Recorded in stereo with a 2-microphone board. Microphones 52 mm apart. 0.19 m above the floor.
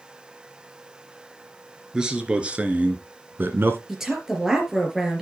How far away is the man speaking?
About 2.5 m.